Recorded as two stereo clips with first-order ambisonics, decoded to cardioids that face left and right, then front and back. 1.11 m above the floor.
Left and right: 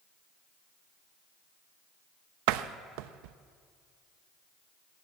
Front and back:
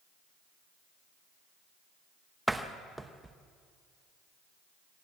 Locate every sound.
2.5 s a door slam: 95° right, 0.7 m